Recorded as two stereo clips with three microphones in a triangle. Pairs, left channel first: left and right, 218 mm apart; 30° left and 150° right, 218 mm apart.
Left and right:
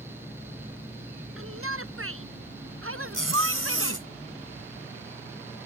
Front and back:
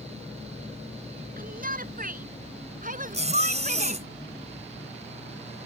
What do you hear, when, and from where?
1.4 s a shout: 100° right; by 4.0 s 95° right
3.1 s a zipper: 90° right